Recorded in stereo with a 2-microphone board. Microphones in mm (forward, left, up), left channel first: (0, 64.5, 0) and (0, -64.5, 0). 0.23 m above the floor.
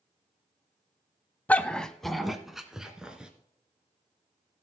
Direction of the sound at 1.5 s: 15° left (ahead or behind).